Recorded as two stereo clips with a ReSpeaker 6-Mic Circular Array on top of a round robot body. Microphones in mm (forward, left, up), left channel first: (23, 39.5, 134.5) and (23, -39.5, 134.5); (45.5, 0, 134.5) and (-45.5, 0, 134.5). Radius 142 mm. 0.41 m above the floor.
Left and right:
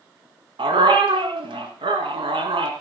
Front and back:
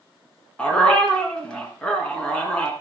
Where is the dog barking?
80° right, 2.5 m.